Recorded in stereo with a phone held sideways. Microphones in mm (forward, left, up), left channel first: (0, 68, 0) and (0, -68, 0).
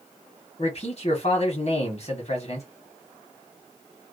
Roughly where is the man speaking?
Left.